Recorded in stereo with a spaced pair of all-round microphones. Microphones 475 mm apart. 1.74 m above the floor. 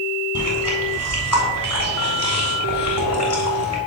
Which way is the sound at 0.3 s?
35° left (ahead or behind).